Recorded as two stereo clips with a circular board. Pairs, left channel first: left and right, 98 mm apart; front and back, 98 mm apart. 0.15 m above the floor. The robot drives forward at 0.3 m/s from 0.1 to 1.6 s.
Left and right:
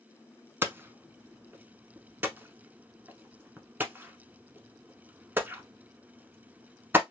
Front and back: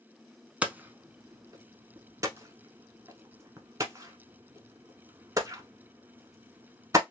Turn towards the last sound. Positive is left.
turn(degrees=-150)